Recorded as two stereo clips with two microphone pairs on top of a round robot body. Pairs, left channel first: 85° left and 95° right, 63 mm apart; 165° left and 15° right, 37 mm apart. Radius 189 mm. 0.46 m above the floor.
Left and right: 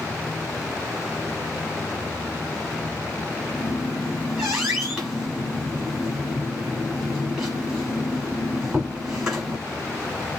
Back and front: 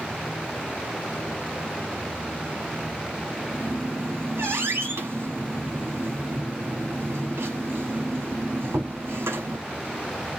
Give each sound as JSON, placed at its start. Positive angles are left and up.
{"t": 3.5, "sound": "a squeak", "azimuth_deg": -15, "distance_m": 1.3}